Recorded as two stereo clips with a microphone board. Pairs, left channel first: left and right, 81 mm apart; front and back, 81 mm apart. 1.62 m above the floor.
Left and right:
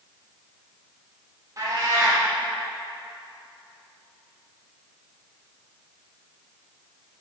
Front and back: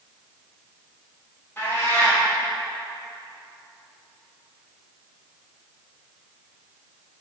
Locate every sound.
1.6 s a cat meowing: 55° right, 1.9 m